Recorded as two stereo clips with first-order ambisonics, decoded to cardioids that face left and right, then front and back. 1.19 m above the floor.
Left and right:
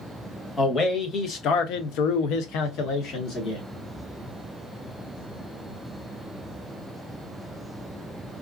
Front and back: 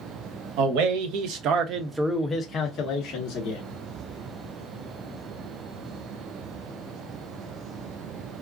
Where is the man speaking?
160° left, 1.0 m; by 3.6 s 35° left, 1.0 m.